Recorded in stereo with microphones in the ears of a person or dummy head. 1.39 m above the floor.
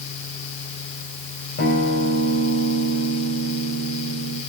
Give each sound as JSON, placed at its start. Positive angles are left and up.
{"t": 1.6, "sound": "a guitar", "side_deg": 45, "distance_m": 3.0}